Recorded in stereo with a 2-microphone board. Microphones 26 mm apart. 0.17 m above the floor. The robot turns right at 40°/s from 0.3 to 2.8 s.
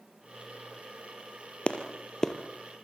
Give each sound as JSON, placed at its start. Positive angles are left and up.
{"t": 1.7, "sound": "a clap", "side_deg": 45, "distance_m": 2.5}